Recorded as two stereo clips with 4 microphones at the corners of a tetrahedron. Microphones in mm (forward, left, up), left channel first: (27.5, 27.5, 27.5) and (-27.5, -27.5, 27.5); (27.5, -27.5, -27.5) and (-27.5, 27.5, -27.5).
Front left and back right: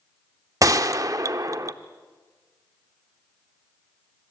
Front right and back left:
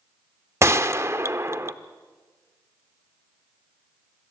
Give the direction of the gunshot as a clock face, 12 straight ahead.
6 o'clock.